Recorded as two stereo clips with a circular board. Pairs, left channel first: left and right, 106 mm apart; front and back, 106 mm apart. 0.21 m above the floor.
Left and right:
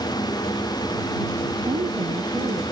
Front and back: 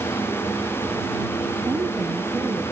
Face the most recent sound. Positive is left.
turn(degrees=-115)